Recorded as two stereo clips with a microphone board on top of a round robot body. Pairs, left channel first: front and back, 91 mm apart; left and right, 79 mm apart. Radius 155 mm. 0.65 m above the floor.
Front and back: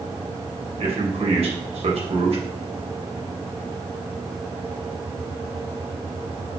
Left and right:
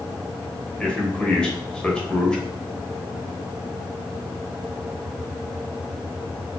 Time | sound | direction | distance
0.8 | a man speaking | 170° left | 3 m